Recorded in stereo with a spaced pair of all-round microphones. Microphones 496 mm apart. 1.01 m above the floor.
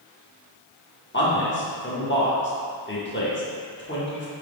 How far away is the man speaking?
About 0.8 m.